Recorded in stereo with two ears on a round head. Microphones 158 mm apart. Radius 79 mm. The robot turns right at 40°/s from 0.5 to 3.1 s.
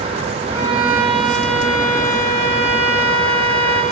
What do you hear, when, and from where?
0.5 s a violin: 25° right, 7.5 m; by 3.8 s 80° left, 7.5 m